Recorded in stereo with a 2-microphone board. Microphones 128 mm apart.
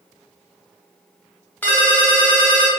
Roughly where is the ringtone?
Centre.